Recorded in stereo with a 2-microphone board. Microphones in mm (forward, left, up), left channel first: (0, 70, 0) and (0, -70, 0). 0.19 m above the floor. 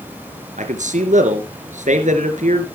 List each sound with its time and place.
0.6 s a man speaking: 65° right (ahead or behind), 3 m